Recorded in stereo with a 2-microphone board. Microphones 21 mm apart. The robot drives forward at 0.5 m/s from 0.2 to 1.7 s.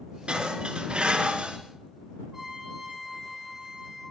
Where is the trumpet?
15° right (ahead or behind), 7.5 m.